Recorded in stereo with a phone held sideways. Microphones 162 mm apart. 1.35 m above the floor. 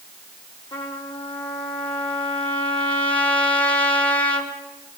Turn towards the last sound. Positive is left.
turn(degrees=35)  # may be behind; listen again after turning